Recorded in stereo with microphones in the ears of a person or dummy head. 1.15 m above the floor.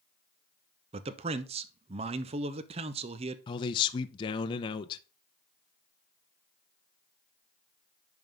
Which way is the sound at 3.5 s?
25° left (ahead or behind).